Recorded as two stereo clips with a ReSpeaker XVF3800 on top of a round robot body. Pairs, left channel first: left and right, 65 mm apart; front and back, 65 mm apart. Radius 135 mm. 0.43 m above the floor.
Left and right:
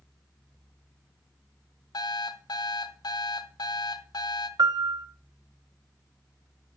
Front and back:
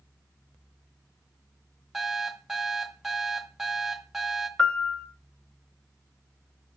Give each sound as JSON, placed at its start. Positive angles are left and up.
{"t": 1.9, "sound": "an alarm clock", "azimuth_deg": 95, "distance_m": 1.7}
{"t": 4.6, "sound": "a piano", "azimuth_deg": -75, "distance_m": 1.4}